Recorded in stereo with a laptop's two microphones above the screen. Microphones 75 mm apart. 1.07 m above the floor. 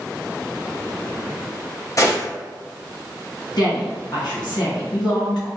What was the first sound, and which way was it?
A gunshot, 45° left (ahead or behind).